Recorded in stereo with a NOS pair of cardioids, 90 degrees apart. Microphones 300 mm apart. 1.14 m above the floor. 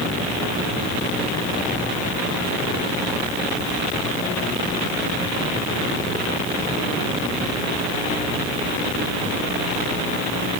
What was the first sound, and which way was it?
Only background noise.